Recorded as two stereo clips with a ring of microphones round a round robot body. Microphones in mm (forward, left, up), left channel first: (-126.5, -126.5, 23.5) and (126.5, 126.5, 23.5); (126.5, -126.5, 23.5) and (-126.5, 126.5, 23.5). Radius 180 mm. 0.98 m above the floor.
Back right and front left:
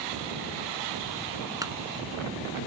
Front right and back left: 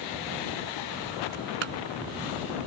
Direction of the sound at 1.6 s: 125° left.